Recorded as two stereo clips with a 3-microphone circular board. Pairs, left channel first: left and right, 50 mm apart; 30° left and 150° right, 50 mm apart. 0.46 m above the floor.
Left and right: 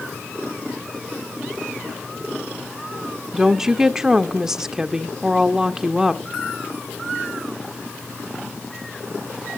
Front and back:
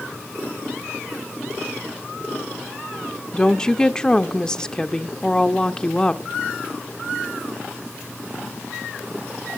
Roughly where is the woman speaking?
Ahead.